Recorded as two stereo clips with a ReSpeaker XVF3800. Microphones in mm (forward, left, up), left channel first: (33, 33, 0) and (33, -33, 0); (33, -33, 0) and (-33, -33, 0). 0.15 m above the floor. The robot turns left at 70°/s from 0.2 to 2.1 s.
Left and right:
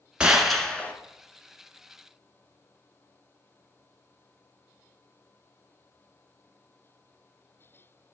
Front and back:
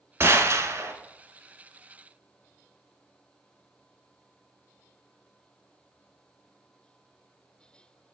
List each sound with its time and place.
0.2 s a gunshot: 160° right, 1.0 m; by 0.9 s 150° left, 1.0 m